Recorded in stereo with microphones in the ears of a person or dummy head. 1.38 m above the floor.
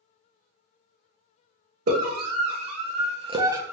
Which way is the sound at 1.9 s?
55° right (ahead or behind).